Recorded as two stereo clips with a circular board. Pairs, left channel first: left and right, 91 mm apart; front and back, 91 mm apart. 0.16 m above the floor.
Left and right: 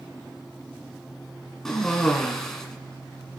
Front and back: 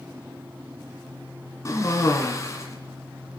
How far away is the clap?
No clap in this recording.